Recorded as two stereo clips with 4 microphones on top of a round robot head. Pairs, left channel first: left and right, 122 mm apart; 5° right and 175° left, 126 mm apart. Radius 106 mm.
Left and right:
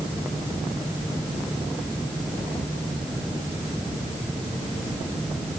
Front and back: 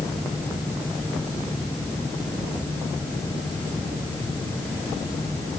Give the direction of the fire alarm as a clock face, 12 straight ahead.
I don't hear a fire alarm.